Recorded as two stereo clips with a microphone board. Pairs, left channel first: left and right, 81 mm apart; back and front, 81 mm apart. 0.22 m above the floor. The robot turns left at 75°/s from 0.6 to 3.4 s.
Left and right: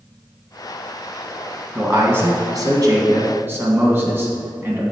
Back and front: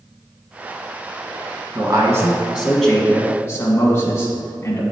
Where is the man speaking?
15° right, 1.6 m; by 4.8 s 140° right, 1.6 m.